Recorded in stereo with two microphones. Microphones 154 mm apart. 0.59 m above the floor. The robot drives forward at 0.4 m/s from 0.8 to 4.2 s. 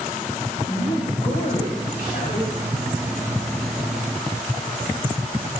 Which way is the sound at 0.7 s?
75° left (ahead or behind).